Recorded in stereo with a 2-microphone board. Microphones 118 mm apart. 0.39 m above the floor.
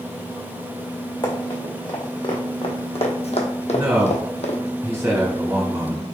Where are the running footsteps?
35° left (ahead or behind), 1.9 m; by 4.6 s 60° left (ahead or behind), 1.0 m.